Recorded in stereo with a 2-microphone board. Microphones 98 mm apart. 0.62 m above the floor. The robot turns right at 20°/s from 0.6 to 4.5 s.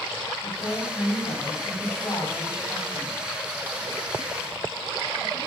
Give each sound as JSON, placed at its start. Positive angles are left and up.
{"t": 0.4, "sound": "a woman speaking", "azimuth_deg": 100, "distance_m": 3.5}